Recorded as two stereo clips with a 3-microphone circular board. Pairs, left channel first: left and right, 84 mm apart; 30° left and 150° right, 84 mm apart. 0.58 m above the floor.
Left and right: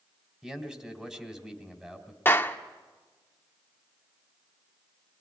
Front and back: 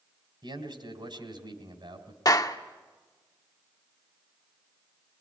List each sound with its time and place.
0.4 s a man speaking: 170° right, 3 m
2.2 s a clap: 35° left, 1.0 m